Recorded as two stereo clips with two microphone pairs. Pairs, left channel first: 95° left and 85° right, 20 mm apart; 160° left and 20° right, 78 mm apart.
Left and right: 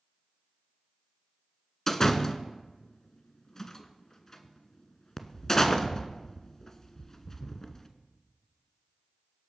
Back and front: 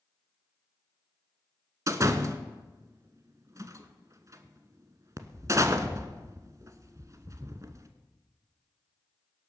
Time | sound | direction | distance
1.9 | a door slam | 25° left | 1.2 m